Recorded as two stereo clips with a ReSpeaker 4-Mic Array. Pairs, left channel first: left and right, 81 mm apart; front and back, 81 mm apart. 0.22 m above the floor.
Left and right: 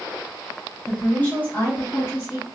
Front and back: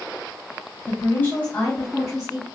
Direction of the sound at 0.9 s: 25° left.